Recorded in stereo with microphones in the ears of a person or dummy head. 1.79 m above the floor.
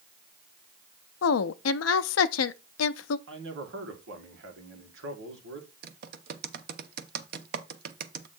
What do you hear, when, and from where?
1.2 s a woman speaking: 85° left, 0.6 m
3.3 s a man speaking: 75° right (ahead or behind), 2.0 m
5.8 s typing on a keyboard: 55° right (ahead or behind), 0.8 m